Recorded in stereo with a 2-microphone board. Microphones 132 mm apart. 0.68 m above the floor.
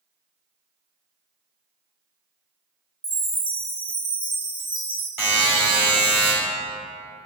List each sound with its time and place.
3.0 s a chime: 40° right (ahead or behind), 0.7 m
5.2 s a buzzer: 20° right (ahead or behind), 1.3 m